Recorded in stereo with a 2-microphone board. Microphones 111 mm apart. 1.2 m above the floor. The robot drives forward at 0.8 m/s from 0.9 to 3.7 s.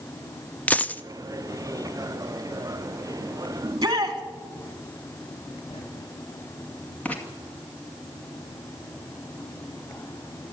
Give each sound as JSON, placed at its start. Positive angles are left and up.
{"t": 0.7, "sound": "a dropped coin", "side_deg": 15, "distance_m": 0.6}
{"t": 3.6, "sound": "a shout", "side_deg": -35, "distance_m": 2.5}
{"t": 5.7, "sound": "writing", "side_deg": 65, "distance_m": 5.0}
{"t": 7.0, "sound": "writing", "side_deg": 15, "distance_m": 2.5}